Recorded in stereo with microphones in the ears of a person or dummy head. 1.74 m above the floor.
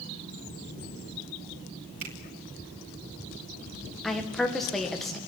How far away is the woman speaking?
About 1.9 m.